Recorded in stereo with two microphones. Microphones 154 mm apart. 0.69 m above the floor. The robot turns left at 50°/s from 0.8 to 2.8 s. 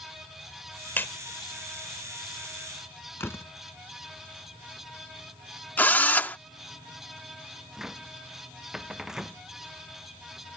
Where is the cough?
No cough in this recording.